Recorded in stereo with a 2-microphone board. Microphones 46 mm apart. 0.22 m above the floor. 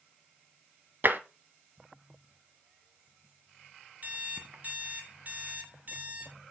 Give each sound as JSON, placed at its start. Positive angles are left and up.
{"t": 1.0, "sound": "tapping", "side_deg": -50, "distance_m": 0.8}
{"t": 4.0, "sound": "an alarm clock", "side_deg": -40, "distance_m": 1.0}